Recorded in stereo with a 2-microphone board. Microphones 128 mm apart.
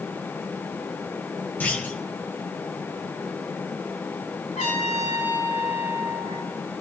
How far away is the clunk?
About 1.4 m.